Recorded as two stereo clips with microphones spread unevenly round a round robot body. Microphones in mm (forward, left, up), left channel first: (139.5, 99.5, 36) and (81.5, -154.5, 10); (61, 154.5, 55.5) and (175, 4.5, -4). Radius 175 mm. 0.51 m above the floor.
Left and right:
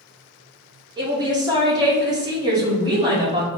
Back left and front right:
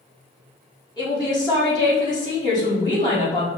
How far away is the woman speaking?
About 1.0 m.